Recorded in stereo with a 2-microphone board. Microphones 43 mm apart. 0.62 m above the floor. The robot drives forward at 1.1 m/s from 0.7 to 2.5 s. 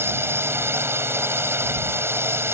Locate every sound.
0.0 s a drone: 70° right (ahead or behind)